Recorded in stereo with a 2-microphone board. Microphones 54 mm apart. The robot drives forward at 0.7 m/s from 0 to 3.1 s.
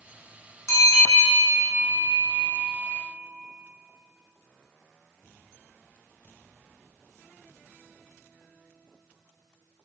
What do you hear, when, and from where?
0.7 s a bell: 65° left (ahead or behind), 2.5 m; by 2.9 s 60° left (ahead or behind), 2.5 m